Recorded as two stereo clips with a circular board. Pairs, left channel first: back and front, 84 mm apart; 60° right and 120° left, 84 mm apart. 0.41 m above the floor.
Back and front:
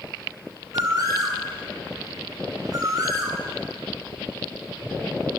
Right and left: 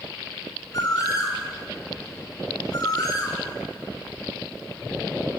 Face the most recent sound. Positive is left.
turn(degrees=-30)